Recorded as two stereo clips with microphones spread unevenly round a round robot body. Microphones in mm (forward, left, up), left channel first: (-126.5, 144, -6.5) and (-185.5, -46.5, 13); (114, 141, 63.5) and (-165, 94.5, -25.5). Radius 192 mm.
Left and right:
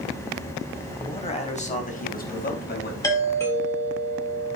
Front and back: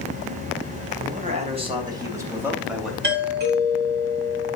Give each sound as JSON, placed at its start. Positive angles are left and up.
{"t": 1.0, "sound": "a man speaking", "azimuth_deg": 135, "distance_m": 3.5}
{"t": 3.0, "sound": "a doorbell", "azimuth_deg": 145, "distance_m": 4.5}